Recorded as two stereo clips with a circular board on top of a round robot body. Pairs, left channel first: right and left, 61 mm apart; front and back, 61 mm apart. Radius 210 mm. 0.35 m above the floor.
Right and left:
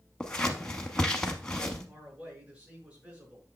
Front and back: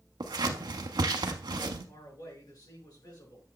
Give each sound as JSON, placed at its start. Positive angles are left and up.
{"t": 0.2, "sound": "scissors", "azimuth_deg": -170, "distance_m": 0.7}
{"t": 1.9, "sound": "a man speaking", "azimuth_deg": 20, "distance_m": 6.5}